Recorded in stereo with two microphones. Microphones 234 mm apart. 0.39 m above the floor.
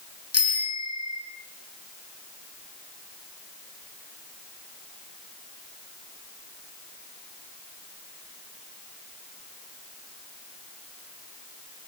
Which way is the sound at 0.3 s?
75° left (ahead or behind).